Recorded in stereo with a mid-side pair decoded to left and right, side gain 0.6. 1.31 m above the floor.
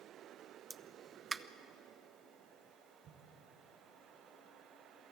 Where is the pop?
20° right, 0.8 m.